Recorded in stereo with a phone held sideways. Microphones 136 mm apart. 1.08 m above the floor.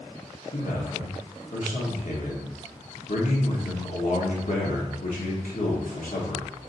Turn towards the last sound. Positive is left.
turn(degrees=70)  # may be behind; listen again after turning